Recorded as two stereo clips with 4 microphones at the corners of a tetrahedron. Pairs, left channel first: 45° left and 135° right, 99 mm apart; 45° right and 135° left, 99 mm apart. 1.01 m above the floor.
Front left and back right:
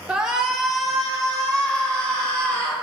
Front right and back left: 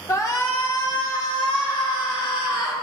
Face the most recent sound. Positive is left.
turn(degrees=-35)